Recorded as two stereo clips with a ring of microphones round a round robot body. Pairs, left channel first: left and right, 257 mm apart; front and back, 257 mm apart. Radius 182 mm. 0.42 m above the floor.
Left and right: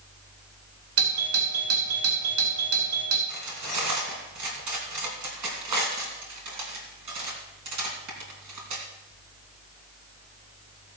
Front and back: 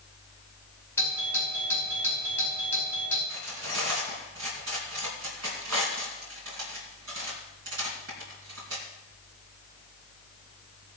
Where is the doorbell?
80° right, 3.5 m.